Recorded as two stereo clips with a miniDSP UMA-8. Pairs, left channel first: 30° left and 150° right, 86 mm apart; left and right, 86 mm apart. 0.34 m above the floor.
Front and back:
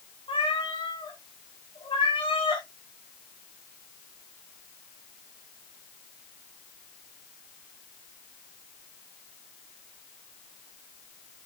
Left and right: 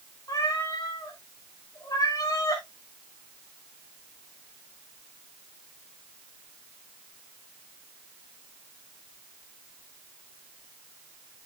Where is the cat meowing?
45° left, 3 m.